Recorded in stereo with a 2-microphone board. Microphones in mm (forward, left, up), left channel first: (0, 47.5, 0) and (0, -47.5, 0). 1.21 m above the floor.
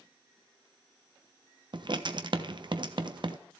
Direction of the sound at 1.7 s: 55° right (ahead or behind).